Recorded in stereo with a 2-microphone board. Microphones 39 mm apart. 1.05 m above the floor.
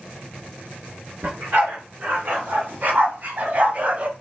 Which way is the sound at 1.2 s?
55° right (ahead or behind).